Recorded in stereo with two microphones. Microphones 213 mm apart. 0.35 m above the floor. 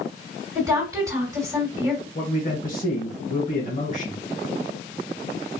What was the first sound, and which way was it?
A woman speaking, 20° right (ahead or behind).